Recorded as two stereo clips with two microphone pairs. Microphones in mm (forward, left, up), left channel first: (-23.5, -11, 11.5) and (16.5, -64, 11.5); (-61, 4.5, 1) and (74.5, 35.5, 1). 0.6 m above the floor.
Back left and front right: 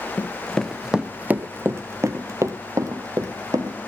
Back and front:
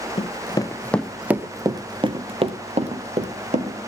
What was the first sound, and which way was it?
Running footsteps, 170° right.